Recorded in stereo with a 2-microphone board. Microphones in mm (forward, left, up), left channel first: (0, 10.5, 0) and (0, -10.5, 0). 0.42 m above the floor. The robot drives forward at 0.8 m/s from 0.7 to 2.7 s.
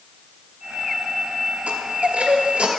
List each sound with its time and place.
1.7 s a chime: 75° right (ahead or behind), 1.4 m; by 2.7 s 70° right (ahead or behind), 1.5 m